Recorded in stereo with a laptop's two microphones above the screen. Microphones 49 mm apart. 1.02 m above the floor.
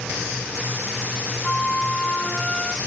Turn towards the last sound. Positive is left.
turn(degrees=10)  # may be behind; listen again after turning